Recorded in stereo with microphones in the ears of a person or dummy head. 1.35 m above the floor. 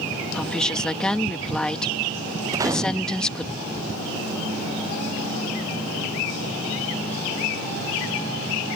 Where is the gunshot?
20° right (ahead or behind).